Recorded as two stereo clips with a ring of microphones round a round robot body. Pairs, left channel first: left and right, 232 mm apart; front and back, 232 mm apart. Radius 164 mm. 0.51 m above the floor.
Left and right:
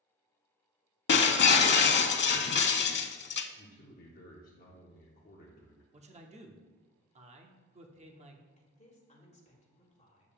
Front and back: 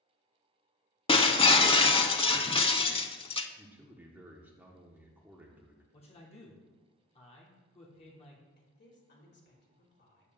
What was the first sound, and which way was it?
Breaking glass, 65° left.